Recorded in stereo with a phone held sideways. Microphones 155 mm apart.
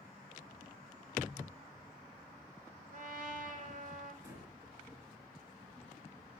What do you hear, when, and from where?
2.9 s a trumpet: 55° right (ahead or behind), 1.3 m
4.2 s breathing: 20° right (ahead or behind), 3.5 m